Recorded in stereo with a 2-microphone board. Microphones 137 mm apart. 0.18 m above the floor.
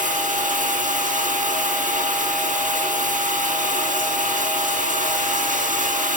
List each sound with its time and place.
0.0 s running water: 75° right (ahead or behind), 4.5 m